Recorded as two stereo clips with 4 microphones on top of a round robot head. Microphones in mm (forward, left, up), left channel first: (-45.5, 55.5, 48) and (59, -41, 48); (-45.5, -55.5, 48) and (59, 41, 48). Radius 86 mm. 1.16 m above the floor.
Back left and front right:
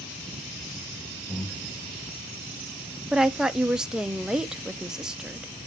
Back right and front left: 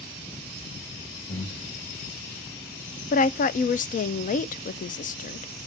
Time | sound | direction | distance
1.3 | breathing | 150° right | 3.5 m
3.1 | a woman speaking | 125° right | 0.5 m